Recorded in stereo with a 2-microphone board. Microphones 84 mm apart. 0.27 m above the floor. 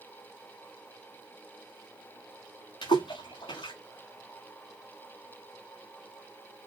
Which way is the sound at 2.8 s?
90° left.